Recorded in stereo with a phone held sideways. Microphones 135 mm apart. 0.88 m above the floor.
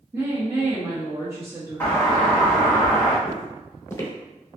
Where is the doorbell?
15° left (ahead or behind), 1.1 m.